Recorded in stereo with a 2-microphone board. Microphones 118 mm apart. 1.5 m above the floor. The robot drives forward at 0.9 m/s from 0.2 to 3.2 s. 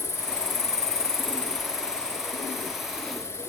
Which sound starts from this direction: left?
An insect, at 0.0 s.